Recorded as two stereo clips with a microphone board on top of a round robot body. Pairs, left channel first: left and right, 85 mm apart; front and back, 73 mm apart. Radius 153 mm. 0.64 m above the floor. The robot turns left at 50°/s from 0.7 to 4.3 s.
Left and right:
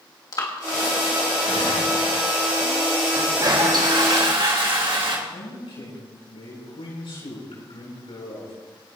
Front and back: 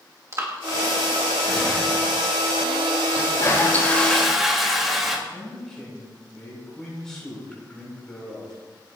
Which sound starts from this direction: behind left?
Breathing, at 0.3 s.